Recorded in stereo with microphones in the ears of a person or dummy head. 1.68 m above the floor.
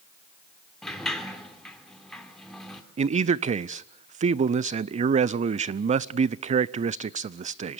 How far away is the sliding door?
About 2.5 m.